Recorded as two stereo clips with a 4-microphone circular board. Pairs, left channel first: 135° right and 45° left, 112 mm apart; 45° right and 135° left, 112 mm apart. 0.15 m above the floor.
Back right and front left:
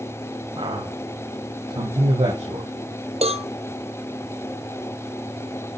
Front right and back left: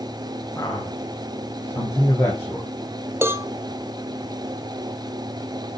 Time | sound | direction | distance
0.6 | a man speaking | 20° left | 8 m
3.2 | a cowbell | 65° left | 1.4 m